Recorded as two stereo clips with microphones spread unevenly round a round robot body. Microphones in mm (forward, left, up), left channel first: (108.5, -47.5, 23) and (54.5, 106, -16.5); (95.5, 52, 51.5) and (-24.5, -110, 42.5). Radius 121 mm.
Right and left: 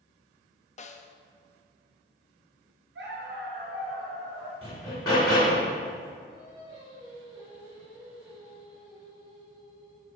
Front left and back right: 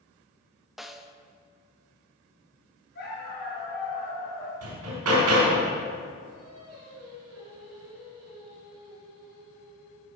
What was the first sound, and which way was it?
A snare drum, 45° right.